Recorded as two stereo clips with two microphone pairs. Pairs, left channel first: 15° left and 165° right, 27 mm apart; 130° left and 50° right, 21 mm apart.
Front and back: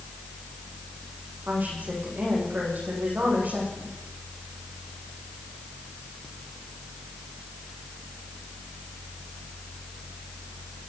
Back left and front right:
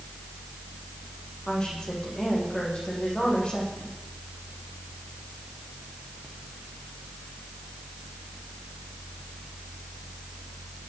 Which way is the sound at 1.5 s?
175° left.